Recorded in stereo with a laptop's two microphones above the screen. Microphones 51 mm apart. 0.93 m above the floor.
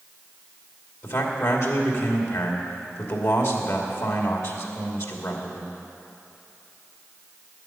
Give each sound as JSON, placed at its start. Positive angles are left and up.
{"t": 1.0, "sound": "a man speaking", "side_deg": 65, "distance_m": 2.5}